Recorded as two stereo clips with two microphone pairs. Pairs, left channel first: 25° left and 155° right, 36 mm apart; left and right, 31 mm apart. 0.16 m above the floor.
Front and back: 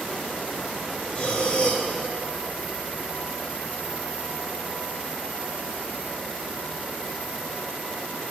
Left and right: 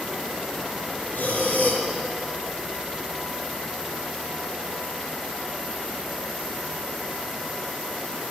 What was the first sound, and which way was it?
Breathing, 80° left.